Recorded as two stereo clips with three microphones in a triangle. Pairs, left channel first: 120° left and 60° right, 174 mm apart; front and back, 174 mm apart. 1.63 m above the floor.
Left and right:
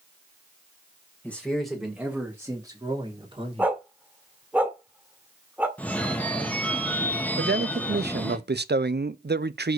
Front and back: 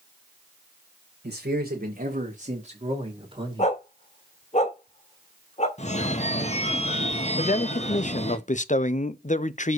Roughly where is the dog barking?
Ahead.